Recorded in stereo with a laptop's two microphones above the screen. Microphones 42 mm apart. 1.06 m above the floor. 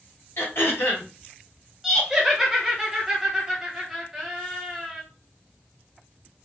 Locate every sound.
0.4 s throat clearing: 70° left (ahead or behind), 1.7 m
1.8 s laughter: 5° right (ahead or behind), 0.7 m